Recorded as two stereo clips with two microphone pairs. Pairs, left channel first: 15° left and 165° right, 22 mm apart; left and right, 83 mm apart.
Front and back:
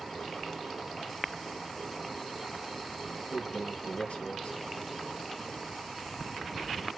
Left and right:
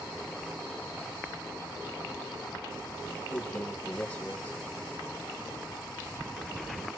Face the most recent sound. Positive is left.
turn(degrees=20)